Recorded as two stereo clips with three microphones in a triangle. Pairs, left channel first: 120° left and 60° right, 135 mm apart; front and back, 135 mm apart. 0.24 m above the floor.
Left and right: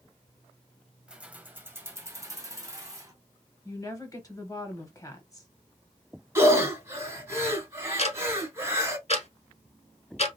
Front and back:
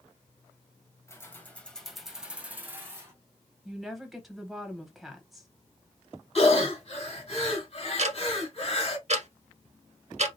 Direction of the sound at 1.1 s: 10° left.